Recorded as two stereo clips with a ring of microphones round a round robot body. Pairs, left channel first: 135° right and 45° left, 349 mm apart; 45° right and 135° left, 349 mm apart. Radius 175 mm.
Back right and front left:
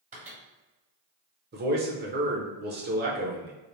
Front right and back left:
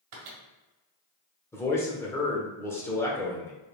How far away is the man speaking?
About 1.0 m.